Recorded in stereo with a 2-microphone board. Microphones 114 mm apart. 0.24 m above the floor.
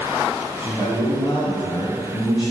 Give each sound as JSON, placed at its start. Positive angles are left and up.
{"t": 0.6, "sound": "a man speaking", "side_deg": 45, "distance_m": 2.0}